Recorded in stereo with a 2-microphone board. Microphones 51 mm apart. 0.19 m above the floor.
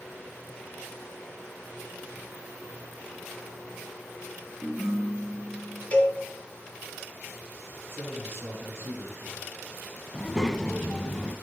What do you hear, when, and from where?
4.6 s a ringtone: 10° left (ahead or behind), 5.5 m
5.9 s a cowbell: 30° left (ahead or behind), 1.9 m
7.9 s a man speaking: 55° right (ahead or behind), 3 m
10.1 s a child speaking: 10° left (ahead or behind), 1.0 m